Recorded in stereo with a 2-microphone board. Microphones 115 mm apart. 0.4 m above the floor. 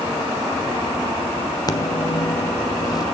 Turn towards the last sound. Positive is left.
turn(degrees=35)  # may be behind; listen again after turning